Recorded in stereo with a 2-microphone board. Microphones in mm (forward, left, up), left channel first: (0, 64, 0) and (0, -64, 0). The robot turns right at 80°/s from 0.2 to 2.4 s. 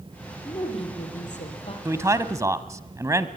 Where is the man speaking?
20° right (ahead or behind), 1.2 m; by 3.3 s 25° right (ahead or behind), 1.2 m.